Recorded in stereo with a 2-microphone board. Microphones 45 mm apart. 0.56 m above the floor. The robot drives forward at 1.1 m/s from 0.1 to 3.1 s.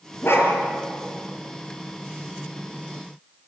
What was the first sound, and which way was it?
A dog barking, 65° left (ahead or behind).